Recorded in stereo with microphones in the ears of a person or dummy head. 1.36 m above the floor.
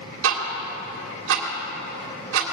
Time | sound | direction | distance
0.2 | ticking | 70° right (ahead or behind) | 2.5 m